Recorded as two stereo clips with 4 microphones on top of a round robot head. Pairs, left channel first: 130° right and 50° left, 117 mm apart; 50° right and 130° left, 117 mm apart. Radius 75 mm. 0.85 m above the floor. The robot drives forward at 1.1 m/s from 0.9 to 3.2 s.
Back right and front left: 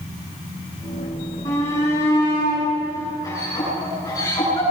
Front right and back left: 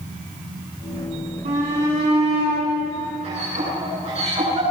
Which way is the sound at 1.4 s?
165° left.